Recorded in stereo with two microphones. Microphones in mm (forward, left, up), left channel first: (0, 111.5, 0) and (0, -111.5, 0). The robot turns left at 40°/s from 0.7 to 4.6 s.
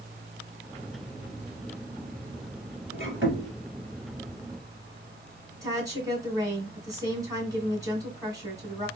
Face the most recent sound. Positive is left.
turn(degrees=-15)  # may be behind; listen again after turning